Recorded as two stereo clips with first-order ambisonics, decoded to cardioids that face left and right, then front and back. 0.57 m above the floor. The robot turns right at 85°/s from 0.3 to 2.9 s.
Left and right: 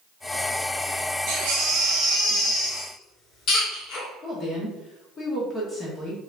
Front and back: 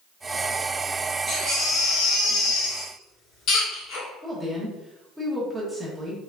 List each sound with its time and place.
1.3 s a baby crying: 95° right, 1.9 m; by 4.1 s 45° left, 1.9 m
4.2 s a woman speaking: 110° left, 1.1 m